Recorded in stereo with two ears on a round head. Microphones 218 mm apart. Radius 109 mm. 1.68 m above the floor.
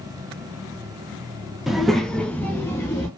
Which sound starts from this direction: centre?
A child speaking, at 1.7 s.